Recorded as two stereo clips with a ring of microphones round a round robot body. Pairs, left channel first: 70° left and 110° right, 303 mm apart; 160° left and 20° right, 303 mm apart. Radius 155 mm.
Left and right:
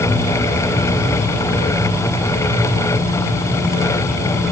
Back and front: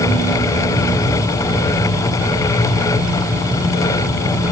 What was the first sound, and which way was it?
Only background noise.